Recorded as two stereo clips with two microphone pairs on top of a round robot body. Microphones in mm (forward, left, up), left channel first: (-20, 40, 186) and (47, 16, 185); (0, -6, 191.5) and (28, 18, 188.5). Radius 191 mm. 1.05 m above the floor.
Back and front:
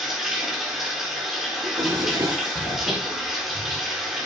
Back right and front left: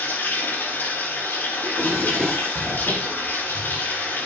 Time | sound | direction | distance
0.0 | running water | 105° right | 2.5 m
1.6 | a drawer | 55° right | 5.5 m